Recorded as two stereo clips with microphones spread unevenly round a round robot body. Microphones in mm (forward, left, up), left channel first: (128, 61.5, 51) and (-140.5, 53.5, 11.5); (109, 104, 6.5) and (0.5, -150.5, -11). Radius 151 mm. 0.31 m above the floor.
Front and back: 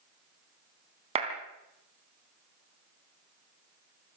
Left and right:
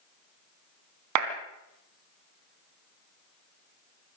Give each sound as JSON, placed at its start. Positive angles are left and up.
{"t": 1.1, "sound": "a clap", "azimuth_deg": -115, "distance_m": 3.0}